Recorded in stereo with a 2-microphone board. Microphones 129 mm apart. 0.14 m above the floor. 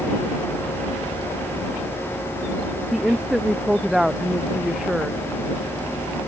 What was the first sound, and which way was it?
A woman speaking, 5° right (ahead or behind).